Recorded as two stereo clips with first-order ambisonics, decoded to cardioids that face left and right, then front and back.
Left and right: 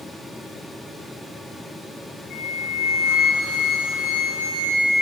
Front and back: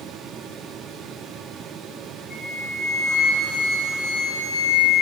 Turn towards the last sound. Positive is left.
turn(degrees=60)